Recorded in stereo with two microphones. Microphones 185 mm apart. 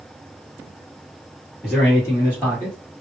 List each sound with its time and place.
1.6 s a man speaking: centre (ahead or behind), 1.5 m; by 2.8 s 15° right (ahead or behind), 1.9 m